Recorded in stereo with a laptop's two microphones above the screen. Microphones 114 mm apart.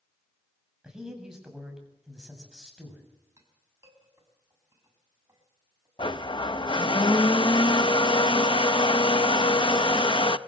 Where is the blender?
45° left (ahead or behind), 0.6 m.